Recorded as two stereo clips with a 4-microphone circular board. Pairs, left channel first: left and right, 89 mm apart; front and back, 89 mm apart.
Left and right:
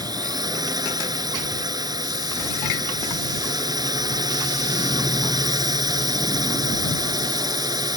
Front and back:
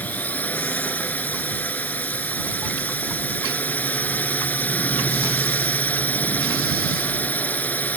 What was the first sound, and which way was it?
A drone, 65° right.